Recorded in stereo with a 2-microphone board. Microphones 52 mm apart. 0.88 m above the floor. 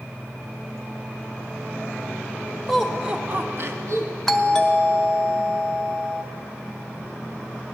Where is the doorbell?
10° left (ahead or behind), 0.7 m.